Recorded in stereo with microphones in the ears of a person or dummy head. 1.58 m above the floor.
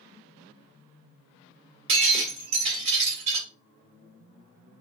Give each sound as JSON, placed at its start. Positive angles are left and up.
{"t": 1.9, "sound": "breaking glass", "side_deg": -35, "distance_m": 1.3}